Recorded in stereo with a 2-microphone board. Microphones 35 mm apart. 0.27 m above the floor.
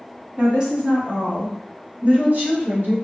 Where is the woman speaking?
25° right (ahead or behind), 1.3 m; by 3.0 s 60° right (ahead or behind), 2 m.